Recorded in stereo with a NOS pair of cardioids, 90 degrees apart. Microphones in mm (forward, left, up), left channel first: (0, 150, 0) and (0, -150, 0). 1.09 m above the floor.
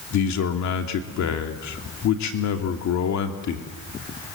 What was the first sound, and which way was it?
A man speaking, 70° left.